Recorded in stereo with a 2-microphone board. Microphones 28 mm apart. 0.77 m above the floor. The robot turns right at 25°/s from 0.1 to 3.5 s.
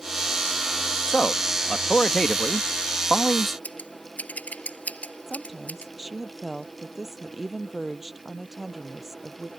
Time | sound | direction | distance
1.1 | a man speaking | 120° left | ?
3.6 | scissors | 65° left (ahead or behind) | ?
5.3 | a woman speaking | 10° right (ahead or behind) | ?